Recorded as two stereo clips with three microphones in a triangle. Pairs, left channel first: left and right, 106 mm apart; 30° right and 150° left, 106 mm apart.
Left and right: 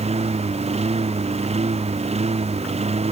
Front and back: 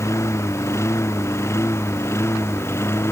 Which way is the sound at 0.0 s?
95° right.